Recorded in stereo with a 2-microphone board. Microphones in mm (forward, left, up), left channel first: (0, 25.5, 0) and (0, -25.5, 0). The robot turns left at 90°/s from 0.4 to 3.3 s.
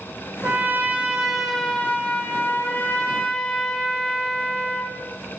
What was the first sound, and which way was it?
A trumpet, 90° right.